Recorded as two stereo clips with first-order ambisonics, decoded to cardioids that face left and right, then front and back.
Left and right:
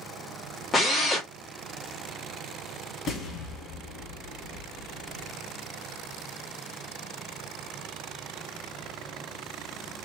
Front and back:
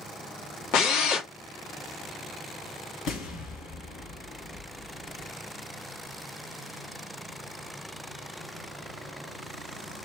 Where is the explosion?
40° left, 1.9 m.